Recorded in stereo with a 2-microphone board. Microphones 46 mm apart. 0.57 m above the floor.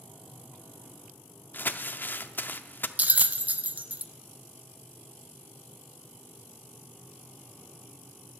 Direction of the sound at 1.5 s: 50° left (ahead or behind).